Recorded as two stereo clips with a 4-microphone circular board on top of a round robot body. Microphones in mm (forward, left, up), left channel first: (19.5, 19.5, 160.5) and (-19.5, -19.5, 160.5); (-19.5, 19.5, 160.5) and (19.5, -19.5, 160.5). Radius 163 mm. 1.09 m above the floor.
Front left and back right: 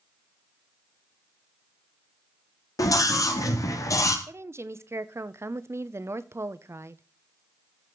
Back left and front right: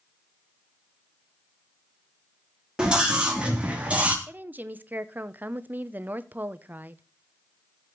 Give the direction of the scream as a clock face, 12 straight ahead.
11 o'clock.